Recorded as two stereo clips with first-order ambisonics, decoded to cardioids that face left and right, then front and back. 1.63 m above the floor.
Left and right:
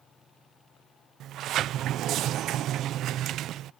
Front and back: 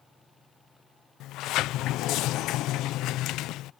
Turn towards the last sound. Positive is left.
turn(degrees=-40)